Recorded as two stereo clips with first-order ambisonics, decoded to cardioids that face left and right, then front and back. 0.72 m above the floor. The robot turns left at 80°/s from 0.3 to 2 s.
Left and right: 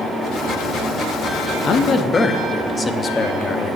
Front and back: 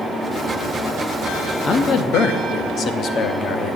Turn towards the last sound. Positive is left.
turn(degrees=25)